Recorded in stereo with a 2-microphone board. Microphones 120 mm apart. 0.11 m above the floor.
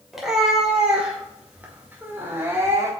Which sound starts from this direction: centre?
A cat meowing, at 0.1 s.